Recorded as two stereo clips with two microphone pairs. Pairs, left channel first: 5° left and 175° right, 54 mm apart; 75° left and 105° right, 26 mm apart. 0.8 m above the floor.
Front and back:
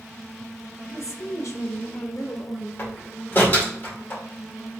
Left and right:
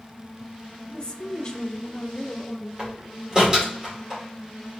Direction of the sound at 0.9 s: 20° left.